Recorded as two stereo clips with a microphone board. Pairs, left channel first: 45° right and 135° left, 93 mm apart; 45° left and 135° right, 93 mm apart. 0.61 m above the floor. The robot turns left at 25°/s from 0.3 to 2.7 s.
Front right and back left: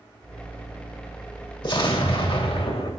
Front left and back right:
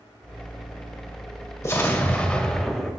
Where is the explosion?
15° right, 1.8 m; by 2.9 s 40° right, 1.8 m.